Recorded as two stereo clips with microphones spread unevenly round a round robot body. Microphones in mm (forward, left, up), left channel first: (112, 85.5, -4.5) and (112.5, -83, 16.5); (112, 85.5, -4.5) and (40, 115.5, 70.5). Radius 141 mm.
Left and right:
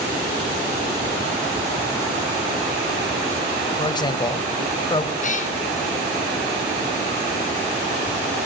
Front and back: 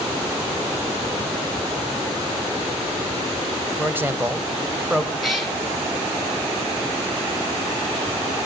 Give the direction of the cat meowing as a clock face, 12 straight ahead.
10 o'clock.